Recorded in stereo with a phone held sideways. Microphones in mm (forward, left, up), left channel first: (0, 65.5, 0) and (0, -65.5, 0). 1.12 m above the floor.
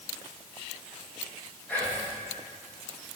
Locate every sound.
1.7 s whispering: 15° left (ahead or behind), 1.7 m